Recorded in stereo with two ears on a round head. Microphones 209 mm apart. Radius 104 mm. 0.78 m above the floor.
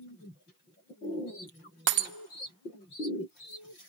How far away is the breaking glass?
About 0.9 m.